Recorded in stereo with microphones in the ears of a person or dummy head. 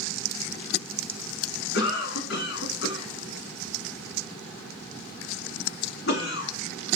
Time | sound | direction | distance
1.7 | a cough | 65° left (ahead or behind) | 1.3 m